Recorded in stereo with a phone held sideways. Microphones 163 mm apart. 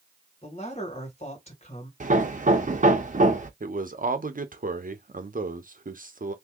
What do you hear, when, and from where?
0.4 s a man speaking: 40° left (ahead or behind), 1.8 m
2.0 s hammering: 50° right (ahead or behind), 0.7 m
3.6 s a man speaking: 55° right (ahead or behind), 0.7 m